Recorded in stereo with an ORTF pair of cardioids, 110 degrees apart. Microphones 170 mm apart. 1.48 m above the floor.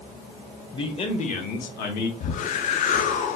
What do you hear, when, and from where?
0.7 s a man speaking: 25° left, 1.3 m; by 2.1 s 75° left, 1.2 m
2.2 s a whoosh: 50° left, 0.6 m